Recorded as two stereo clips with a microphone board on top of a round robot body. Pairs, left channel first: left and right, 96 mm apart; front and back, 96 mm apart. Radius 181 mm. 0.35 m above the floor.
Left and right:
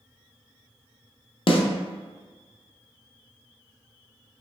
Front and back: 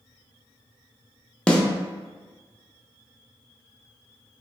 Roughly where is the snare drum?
Left.